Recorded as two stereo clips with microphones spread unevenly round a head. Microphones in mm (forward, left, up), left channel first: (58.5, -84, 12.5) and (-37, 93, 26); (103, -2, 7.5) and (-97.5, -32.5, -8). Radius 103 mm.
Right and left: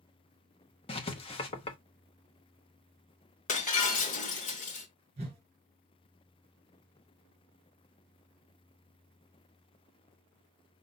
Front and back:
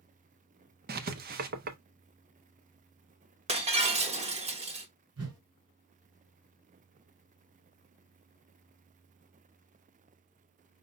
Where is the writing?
125° right, 0.8 m.